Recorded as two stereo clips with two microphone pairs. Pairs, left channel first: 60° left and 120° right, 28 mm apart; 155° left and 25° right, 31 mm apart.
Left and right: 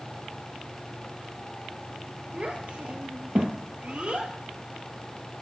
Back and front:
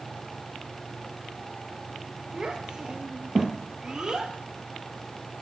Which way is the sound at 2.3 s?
85° right.